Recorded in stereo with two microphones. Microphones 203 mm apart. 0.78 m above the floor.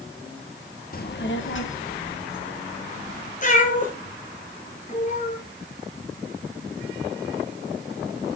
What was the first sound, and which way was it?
A child speaking, 45° left (ahead or behind).